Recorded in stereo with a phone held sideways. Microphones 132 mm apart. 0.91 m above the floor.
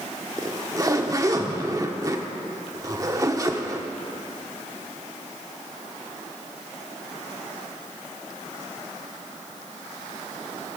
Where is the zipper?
25° right (ahead or behind), 0.9 m.